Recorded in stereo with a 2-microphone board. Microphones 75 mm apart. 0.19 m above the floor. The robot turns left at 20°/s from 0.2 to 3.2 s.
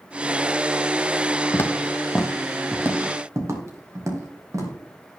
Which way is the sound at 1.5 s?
40° left (ahead or behind).